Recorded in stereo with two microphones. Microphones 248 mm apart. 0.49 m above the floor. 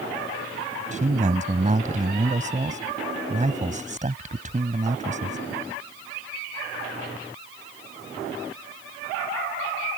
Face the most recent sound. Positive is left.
turn(degrees=-30)  # may be behind; listen again after turning